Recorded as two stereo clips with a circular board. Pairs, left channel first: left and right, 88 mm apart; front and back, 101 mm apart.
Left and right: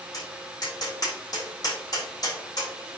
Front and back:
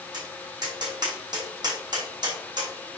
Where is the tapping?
135° left, 4.5 m.